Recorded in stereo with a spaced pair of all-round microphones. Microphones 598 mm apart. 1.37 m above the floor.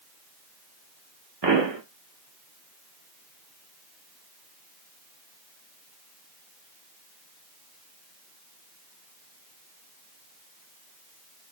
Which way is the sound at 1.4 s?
45° right (ahead or behind).